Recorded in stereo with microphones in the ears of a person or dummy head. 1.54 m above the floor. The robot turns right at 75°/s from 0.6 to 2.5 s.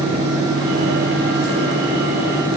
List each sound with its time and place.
Only background noise.